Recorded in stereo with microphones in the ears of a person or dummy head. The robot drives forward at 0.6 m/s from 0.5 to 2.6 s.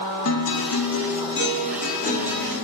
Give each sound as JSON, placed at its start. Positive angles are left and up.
{"t": 0.2, "sound": "a guitar", "side_deg": 70, "distance_m": 0.7}